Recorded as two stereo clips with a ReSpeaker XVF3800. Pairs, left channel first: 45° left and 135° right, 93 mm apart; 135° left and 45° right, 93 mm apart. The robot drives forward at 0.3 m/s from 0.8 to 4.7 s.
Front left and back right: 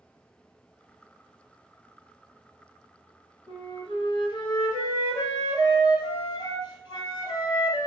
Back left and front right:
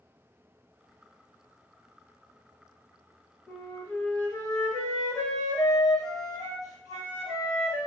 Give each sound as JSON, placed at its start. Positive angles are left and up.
{"t": 3.5, "sound": "a flute", "azimuth_deg": 60, "distance_m": 0.9}